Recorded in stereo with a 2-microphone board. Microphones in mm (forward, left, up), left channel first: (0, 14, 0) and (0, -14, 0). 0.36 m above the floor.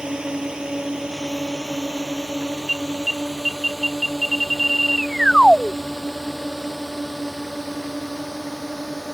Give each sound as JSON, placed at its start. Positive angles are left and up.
{"t": 0.0, "sound": "a drone", "side_deg": -35}
{"t": 2.7, "sound": "an alarm", "side_deg": 5}